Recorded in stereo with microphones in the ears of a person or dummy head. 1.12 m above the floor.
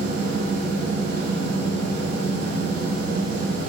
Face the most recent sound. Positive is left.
turn(degrees=-65)  # may be behind; listen again after turning